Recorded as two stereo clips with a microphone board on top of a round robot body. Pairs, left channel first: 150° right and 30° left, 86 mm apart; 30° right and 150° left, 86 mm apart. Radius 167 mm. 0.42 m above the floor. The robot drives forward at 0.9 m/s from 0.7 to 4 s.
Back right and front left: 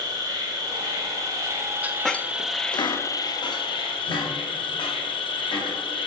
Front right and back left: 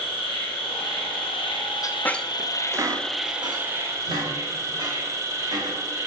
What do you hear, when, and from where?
0.0 s an insect: 15° right, 2 m; by 6.1 s 155° right, 1.3 m
1.8 s a squeak: 30° right, 0.6 m; by 5.8 s 175° right, 1.8 m